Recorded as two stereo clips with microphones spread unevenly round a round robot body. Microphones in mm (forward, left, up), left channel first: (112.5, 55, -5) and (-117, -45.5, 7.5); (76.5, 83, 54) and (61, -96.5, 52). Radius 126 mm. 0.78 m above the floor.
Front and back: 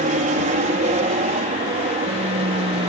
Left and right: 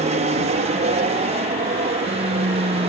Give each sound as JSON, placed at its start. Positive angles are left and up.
{"t": 0.0, "sound": "an aircraft", "azimuth_deg": -115}